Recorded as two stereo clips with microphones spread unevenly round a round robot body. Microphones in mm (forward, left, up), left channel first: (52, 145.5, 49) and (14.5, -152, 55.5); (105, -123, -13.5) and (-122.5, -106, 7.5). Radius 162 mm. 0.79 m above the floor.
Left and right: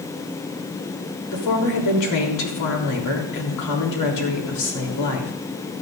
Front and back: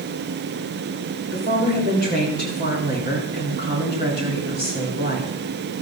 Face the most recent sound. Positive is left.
turn(degrees=110)